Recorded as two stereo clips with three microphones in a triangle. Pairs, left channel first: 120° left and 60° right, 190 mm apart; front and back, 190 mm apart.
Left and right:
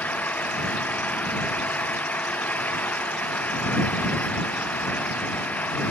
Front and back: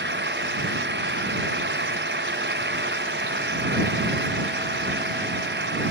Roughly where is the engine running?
Behind.